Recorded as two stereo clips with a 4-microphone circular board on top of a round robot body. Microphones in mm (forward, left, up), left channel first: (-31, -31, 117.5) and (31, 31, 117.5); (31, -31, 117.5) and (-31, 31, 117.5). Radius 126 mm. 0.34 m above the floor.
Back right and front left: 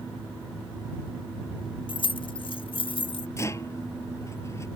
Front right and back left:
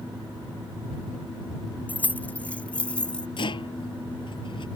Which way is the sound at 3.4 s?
75° right.